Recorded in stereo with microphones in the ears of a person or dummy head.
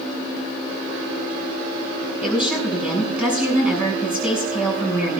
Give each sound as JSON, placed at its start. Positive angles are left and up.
{"t": 2.2, "sound": "a woman speaking", "side_deg": -5, "distance_m": 6.5}